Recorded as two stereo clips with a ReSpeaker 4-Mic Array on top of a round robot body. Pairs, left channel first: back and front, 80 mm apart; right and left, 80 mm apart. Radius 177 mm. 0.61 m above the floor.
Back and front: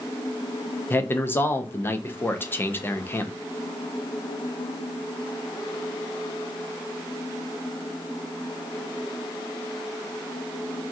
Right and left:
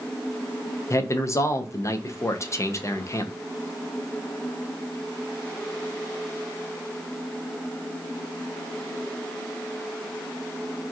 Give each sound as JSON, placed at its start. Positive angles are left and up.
{"t": 0.9, "sound": "a man speaking", "azimuth_deg": -125, "distance_m": 0.8}